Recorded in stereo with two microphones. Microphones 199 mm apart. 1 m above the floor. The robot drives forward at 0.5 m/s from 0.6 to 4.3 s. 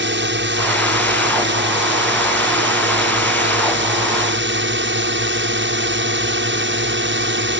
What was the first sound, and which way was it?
A drone, 60° right (ahead or behind).